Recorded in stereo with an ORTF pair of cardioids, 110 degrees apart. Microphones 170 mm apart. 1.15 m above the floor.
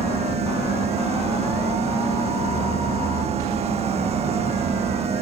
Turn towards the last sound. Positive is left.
turn(degrees=-40)